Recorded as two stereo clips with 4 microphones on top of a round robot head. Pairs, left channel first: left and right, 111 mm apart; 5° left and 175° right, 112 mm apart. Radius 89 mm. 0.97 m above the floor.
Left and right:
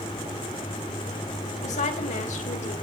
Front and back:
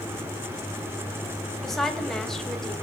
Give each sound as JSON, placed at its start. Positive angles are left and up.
{"t": 1.6, "sound": "a woman speaking", "azimuth_deg": 90, "distance_m": 5.0}